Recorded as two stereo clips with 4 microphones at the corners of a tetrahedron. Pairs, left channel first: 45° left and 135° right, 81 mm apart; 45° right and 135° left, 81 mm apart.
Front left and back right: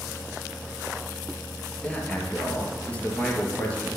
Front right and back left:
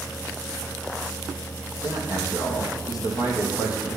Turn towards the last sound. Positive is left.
turn(degrees=-25)